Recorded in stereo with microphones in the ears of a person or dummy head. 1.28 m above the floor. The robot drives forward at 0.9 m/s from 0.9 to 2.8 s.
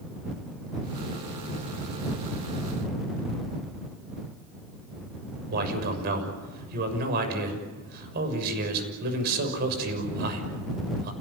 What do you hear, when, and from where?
5.5 s a man speaking: 55° right (ahead or behind), 6.5 m